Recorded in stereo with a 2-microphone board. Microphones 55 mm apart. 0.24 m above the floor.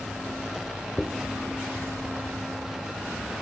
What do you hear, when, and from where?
1.0 s a dropped coin: 15° left (ahead or behind), 1.8 m